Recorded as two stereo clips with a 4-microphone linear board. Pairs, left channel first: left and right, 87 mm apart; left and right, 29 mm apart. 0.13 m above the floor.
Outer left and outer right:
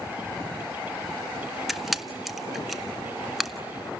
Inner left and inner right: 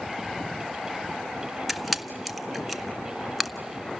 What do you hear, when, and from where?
1.7 s a camera shutter: centre (ahead or behind), 0.7 m